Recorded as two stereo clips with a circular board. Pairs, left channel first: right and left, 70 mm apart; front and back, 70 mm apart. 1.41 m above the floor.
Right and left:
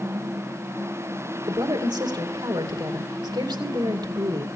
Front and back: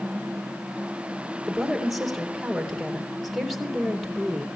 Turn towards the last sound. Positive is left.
turn(degrees=90)